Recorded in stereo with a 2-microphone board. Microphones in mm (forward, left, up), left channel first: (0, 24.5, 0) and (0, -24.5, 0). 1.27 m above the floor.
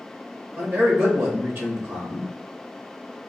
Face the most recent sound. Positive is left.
turn(degrees=-55)  # may be behind; listen again after turning